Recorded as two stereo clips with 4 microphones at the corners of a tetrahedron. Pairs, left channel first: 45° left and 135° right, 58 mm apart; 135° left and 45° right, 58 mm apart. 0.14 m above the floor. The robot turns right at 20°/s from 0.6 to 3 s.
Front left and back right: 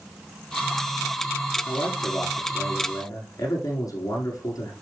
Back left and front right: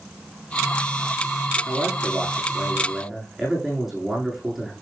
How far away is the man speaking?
About 8 m.